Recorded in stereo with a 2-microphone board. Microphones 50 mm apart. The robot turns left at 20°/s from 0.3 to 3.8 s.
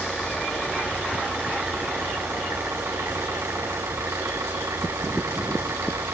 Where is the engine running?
10° right, 4 m; by 6.1 s 80° right, 4 m.